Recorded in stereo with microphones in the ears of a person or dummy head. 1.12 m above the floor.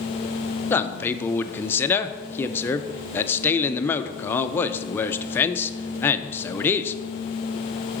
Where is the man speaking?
15° left (ahead or behind), 0.5 m.